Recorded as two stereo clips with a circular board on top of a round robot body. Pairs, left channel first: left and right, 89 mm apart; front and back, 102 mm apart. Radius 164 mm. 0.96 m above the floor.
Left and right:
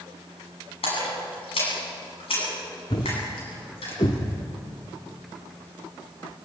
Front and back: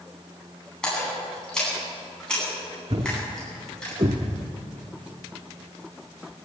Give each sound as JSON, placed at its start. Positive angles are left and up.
{"t": 0.8, "sound": "a splash", "azimuth_deg": 80, "distance_m": 9.5}
{"t": 2.9, "sound": "a thud", "azimuth_deg": 135, "distance_m": 0.6}